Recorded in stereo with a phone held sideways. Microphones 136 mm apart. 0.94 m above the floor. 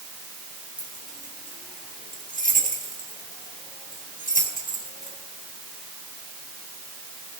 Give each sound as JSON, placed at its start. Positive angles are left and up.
{"t": 0.8, "sound": "keys jangling", "side_deg": 85, "distance_m": 4.0}